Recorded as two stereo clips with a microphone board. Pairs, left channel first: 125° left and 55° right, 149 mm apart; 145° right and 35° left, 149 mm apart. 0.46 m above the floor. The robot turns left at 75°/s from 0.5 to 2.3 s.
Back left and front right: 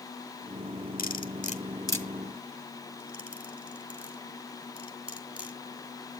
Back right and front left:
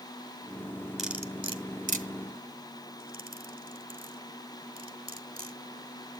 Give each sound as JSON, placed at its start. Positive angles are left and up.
{"t": 1.0, "sound": "cutlery clinking", "azimuth_deg": 125, "distance_m": 1.5}